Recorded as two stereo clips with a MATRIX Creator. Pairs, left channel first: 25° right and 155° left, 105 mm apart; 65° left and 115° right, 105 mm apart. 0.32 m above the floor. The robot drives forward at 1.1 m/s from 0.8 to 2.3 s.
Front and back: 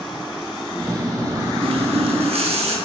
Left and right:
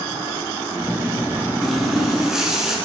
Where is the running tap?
155° left, 2 m; by 2.8 s 165° left, 2.5 m.